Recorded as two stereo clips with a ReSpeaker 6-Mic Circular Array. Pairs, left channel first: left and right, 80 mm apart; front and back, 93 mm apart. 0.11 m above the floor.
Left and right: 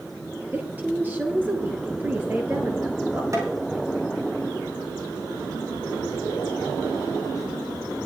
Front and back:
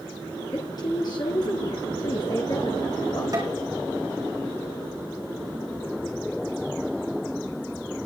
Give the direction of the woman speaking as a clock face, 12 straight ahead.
1 o'clock.